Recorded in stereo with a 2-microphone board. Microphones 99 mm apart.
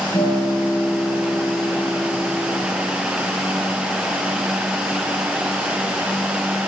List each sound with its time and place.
0.1 s a guitar: 70° left (ahead or behind), 6.5 m